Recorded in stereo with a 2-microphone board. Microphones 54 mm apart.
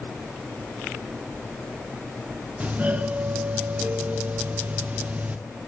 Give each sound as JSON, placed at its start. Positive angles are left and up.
{"t": 2.6, "sound": "a doorbell", "side_deg": -25, "distance_m": 0.6}